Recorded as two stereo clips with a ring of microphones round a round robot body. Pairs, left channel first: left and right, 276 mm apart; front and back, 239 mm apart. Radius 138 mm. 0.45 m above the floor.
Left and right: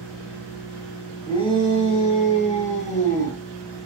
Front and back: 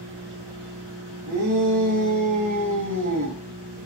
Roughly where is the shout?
Behind.